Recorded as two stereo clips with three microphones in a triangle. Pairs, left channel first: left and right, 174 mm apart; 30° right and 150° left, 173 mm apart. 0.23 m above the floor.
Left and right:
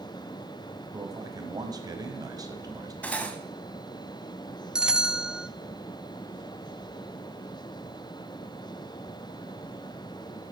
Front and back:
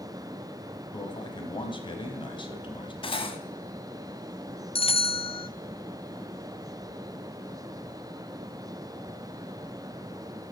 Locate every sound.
0.9 s a man speaking: 45° right, 1.3 m
3.0 s cutlery clinking: 10° left, 1.0 m
4.8 s a bell: 5° right, 0.5 m